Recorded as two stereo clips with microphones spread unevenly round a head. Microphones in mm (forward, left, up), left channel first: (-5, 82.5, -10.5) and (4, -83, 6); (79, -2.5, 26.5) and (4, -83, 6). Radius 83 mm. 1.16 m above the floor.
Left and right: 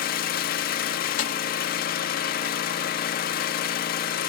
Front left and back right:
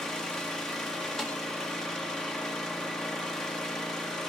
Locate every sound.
0.0 s an engine running: 130° left, 1.2 m
1.2 s a snare drum: 135° left, 1.8 m